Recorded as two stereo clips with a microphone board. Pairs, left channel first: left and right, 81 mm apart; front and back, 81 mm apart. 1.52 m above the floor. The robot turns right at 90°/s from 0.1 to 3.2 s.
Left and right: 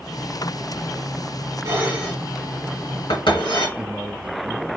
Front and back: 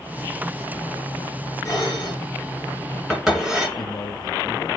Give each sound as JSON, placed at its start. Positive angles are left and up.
{"t": 1.6, "sound": "dishes clattering", "azimuth_deg": -50, "distance_m": 2.0}
{"t": 3.8, "sound": "a man speaking", "azimuth_deg": -10, "distance_m": 0.6}